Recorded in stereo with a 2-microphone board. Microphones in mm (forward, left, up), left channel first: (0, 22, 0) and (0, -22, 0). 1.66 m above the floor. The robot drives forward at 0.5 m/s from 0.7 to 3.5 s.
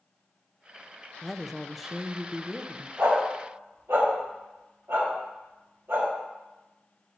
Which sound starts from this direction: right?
A dog barking, at 3.0 s.